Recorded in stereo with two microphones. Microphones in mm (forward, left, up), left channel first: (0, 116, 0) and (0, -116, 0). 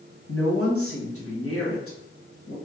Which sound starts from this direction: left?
A woman speaking, at 0.3 s.